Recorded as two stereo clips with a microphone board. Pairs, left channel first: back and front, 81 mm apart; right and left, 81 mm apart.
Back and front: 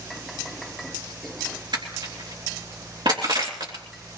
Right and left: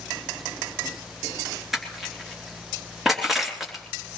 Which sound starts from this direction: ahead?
Crushing, at 1.7 s.